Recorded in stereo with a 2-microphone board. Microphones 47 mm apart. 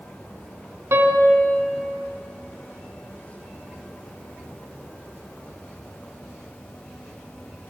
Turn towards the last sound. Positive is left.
turn(degrees=-75)  # may be behind; listen again after turning